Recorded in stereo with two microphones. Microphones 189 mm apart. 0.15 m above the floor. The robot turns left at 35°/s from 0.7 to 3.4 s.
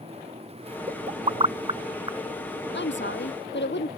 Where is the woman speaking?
70° left (ahead or behind).